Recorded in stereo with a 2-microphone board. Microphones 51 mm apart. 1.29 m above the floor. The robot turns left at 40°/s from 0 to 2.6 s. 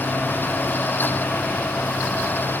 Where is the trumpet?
No trumpet in this recording.